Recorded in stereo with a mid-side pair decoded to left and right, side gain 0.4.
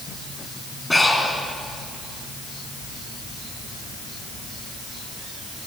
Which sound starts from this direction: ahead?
Breathing, at 0.9 s.